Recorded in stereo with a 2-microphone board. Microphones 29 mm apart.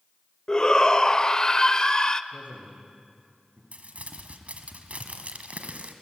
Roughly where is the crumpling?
Right.